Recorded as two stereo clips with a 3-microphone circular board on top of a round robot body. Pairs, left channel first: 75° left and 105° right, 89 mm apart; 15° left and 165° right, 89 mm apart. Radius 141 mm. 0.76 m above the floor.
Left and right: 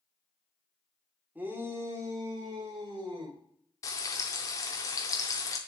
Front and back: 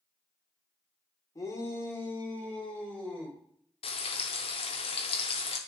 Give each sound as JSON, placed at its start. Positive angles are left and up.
{"t": 1.4, "sound": "a shout", "azimuth_deg": -35, "distance_m": 1.6}
{"t": 3.8, "sound": "frying", "azimuth_deg": 20, "distance_m": 0.7}